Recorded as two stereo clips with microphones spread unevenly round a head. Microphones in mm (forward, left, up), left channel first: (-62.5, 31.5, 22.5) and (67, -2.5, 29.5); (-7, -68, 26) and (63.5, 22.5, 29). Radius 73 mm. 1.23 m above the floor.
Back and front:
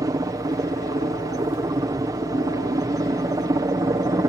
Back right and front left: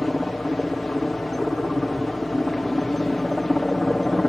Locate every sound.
0.0 s a helicopter: 40° right